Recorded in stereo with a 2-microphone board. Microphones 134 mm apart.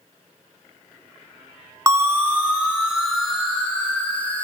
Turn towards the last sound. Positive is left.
turn(degrees=10)  # may be behind; listen again after turning